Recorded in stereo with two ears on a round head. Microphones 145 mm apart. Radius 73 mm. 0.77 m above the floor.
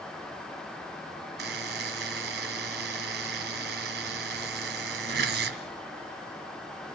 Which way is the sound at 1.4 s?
65° right (ahead or behind).